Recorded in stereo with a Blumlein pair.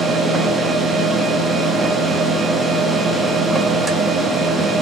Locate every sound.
0.0 s a machine running: 10° right, 1.0 m